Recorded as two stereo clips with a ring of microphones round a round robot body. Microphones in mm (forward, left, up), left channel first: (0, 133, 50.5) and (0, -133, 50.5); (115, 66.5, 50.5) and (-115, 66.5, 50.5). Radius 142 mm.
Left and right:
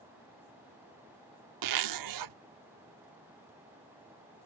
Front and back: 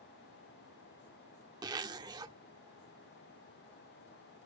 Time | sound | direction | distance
1.6 | a zipper | 105° right | ?